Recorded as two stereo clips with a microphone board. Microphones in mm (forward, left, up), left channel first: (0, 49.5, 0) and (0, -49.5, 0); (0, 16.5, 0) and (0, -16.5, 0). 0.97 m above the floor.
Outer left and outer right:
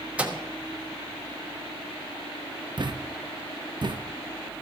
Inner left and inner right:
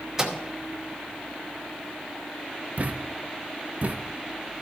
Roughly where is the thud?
Right.